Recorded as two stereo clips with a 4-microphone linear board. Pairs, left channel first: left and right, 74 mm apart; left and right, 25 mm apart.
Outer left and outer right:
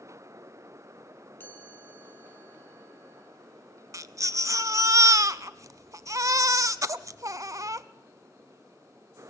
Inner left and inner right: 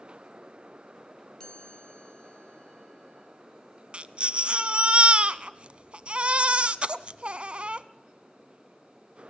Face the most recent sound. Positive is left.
turn(degrees=-45)  # may be behind; listen again after turning